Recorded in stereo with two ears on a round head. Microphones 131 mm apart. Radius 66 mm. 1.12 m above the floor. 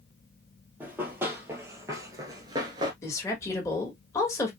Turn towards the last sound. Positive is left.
turn(degrees=20)  # may be behind; listen again after turning